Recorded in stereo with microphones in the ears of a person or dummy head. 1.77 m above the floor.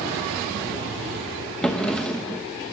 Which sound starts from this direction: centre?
A drawer, at 1.6 s.